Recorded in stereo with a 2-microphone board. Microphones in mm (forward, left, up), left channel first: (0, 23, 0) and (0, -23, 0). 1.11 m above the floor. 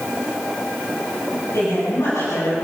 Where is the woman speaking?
70° left (ahead or behind), 9 m; by 2.6 s 65° left (ahead or behind), 10 m.